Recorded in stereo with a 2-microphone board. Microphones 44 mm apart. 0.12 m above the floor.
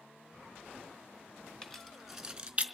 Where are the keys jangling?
10° left (ahead or behind), 1.0 m; by 2.6 s 30° right (ahead or behind), 0.9 m.